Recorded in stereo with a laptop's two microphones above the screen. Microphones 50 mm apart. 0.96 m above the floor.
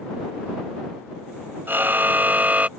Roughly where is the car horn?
Right.